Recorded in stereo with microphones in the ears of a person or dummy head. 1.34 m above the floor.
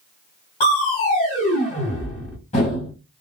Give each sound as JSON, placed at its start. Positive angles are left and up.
{"t": 0.6, "sound": "crushing", "side_deg": 30, "distance_m": 1.8}